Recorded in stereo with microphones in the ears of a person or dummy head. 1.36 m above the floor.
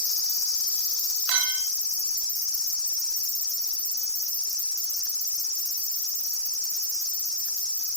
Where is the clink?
60° right (ahead or behind), 1.7 m.